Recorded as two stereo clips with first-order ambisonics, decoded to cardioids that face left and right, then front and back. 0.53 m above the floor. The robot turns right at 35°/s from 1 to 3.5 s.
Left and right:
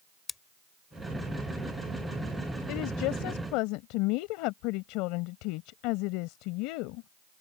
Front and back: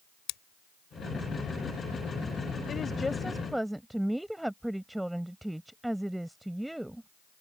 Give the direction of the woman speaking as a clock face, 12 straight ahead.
10 o'clock.